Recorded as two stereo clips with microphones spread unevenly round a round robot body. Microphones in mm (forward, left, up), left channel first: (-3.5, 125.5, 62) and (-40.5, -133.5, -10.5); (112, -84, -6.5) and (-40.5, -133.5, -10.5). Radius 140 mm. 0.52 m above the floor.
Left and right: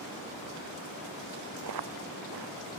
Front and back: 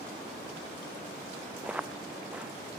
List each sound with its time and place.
1.6 s footsteps: 80° right